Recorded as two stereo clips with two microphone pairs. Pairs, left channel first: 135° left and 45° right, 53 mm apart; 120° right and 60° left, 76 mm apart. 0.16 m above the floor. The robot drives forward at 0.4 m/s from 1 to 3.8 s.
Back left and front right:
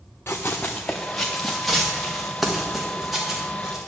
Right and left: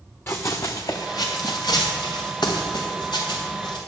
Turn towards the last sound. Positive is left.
turn(degrees=-130)